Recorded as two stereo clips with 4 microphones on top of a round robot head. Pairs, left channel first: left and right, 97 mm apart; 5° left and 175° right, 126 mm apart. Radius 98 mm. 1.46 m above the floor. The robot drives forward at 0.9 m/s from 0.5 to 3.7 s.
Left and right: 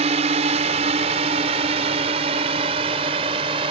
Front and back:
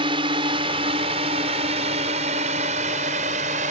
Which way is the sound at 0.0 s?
120° right.